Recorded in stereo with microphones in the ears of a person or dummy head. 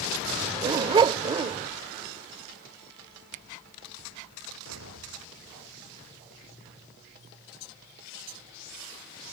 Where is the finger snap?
40° right (ahead or behind).